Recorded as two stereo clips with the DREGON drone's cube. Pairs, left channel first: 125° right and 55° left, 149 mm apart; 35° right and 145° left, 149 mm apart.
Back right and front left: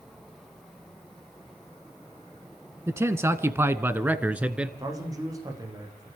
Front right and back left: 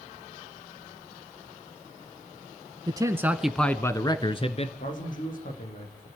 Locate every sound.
2.9 s a man speaking: 115° left, 1.3 m; by 4.7 s 25° right, 1.6 m
4.8 s a man speaking: 10° right, 6 m